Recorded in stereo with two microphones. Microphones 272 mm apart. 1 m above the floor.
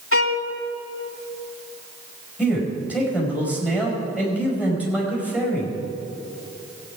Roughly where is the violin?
Left.